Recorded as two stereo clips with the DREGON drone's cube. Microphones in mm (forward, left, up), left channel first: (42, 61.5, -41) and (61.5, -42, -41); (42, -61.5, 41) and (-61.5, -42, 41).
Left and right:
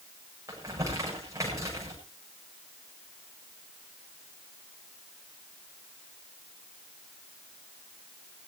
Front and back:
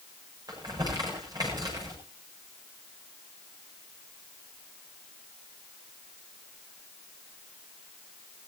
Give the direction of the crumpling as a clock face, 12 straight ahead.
5 o'clock.